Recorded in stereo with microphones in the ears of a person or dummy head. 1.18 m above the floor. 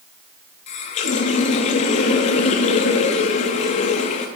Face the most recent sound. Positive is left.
turn(degrees=45)  # may be behind; listen again after turning